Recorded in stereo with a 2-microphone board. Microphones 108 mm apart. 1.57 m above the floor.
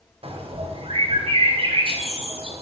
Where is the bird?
60° right (ahead or behind), 1.2 m.